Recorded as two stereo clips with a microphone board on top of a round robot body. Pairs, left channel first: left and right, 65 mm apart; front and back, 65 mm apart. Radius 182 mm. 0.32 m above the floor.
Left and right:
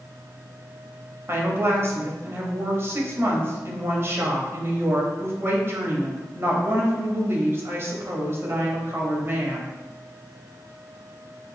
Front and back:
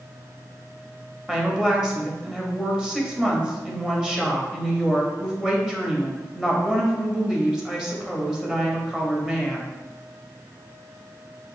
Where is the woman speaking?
105° right, 1.1 m.